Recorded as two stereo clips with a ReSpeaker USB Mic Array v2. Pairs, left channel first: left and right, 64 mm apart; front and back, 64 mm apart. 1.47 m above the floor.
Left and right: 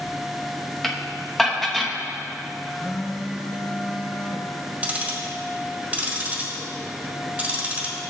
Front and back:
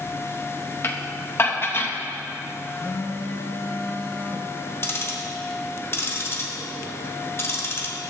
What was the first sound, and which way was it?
Dishes clattering, 10° left.